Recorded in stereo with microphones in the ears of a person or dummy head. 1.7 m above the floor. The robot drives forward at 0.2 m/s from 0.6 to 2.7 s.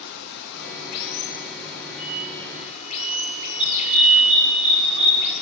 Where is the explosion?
55° right (ahead or behind), 6.5 m.